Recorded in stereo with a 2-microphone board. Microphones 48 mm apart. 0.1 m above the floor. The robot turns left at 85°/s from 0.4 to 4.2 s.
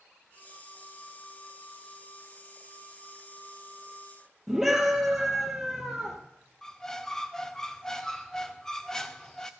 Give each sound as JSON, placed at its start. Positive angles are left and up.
{"t": 4.5, "sound": "a scream", "side_deg": -5, "distance_m": 2.5}
{"t": 6.6, "sound": "a squeak", "side_deg": 10, "distance_m": 0.7}